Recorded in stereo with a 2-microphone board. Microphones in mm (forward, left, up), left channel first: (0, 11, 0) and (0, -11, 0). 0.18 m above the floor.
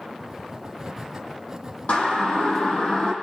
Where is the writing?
20° right (ahead or behind), 1.6 m.